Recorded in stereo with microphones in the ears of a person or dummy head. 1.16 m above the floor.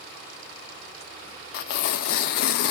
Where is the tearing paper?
60° left (ahead or behind), 0.6 m.